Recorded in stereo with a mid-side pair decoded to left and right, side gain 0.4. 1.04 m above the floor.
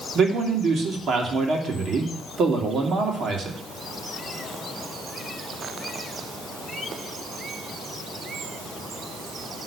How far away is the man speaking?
About 2.5 m.